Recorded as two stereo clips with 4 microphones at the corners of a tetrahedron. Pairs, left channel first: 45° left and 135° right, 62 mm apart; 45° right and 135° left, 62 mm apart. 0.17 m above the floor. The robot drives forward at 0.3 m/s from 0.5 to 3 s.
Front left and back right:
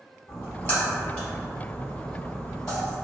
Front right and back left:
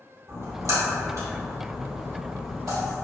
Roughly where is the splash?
Left.